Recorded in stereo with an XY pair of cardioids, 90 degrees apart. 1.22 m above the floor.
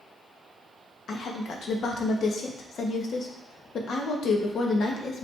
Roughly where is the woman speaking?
Ahead left.